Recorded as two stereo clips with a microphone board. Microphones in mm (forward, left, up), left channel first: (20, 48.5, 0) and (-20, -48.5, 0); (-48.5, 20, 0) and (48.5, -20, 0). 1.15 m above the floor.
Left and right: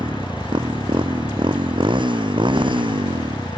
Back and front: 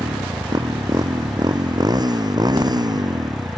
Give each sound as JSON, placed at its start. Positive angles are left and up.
{"t": 0.0, "sound": "a motorcycle", "azimuth_deg": -75}